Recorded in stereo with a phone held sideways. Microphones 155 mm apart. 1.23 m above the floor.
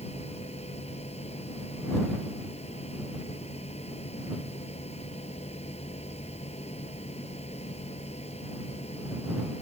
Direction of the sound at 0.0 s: 40° left (ahead or behind).